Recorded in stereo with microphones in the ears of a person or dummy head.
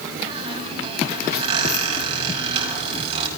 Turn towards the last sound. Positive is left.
turn(degrees=-30)  # may be behind; listen again after turning